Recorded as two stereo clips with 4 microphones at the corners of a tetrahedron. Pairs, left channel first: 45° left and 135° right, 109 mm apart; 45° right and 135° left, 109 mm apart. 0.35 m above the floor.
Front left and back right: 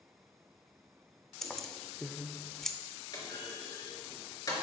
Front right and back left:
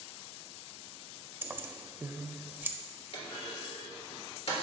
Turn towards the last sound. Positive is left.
turn(degrees=-10)